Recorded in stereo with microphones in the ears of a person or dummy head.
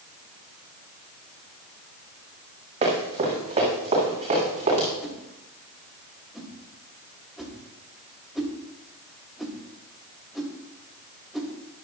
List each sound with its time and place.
2.8 s running footsteps: 35° right (ahead or behind), 6.5 m; by 4.9 s 30° right (ahead or behind), 9.5 m
5.0 s a whoosh: centre (ahead or behind), 2.5 m